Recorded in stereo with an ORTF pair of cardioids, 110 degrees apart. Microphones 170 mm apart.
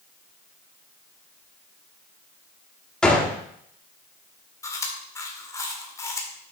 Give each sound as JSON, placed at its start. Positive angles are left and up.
{"t": 3.0, "sound": "a gunshot", "azimuth_deg": 5, "distance_m": 1.4}
{"t": 4.6, "sound": "chewing", "azimuth_deg": 20, "distance_m": 1.6}